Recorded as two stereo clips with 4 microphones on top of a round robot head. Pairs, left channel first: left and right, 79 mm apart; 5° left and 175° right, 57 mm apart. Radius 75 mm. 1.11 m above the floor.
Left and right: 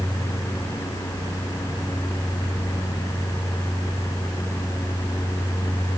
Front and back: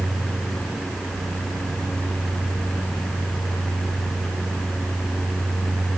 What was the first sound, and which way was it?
Only background noise.